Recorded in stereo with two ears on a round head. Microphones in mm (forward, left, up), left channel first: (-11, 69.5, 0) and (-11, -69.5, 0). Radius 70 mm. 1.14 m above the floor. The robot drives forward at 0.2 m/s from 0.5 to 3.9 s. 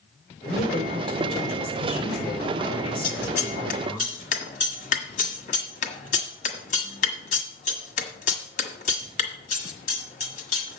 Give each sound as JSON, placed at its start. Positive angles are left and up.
{"t": 0.4, "sound": "a woman speaking", "side_deg": 40, "distance_m": 4.0}
{"t": 3.0, "sound": "scissors", "side_deg": 55, "distance_m": 1.5}